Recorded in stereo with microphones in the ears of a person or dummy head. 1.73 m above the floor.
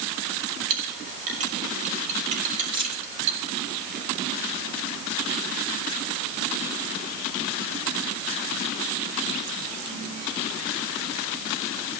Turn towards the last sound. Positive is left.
turn(degrees=-35)  # may be behind; listen again after turning